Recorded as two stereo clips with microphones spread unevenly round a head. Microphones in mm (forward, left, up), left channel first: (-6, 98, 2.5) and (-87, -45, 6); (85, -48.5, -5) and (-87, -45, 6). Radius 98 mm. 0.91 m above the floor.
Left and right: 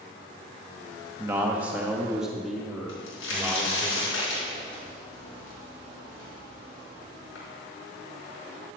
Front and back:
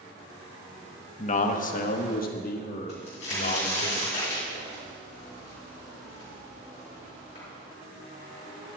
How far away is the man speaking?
About 1.0 m.